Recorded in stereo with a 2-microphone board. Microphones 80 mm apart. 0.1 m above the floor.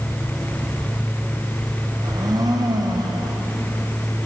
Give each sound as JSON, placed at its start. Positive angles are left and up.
{"t": 2.0, "sound": "a blender", "side_deg": -50, "distance_m": 4.5}